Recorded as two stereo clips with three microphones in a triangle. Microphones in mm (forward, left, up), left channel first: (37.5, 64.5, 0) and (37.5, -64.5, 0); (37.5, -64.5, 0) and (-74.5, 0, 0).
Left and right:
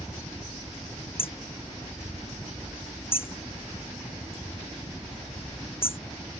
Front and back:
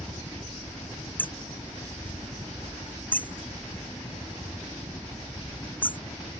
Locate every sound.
0.0 s a helicopter: 25° left
1.2 s hammering: 45° left